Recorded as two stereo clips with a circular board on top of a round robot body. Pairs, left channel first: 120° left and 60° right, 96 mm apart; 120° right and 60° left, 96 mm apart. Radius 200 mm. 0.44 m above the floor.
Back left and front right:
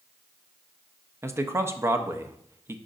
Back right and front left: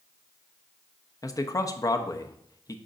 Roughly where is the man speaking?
Right.